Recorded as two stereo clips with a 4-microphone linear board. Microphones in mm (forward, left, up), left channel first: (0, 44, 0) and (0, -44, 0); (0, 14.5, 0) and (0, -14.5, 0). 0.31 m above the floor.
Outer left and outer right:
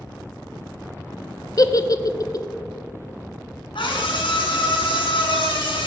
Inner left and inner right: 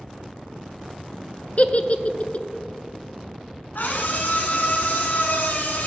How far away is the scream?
About 2.5 m.